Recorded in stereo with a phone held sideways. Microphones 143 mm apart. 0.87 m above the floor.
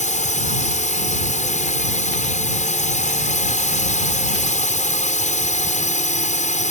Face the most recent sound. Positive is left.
turn(degrees=55)  # may be behind; listen again after turning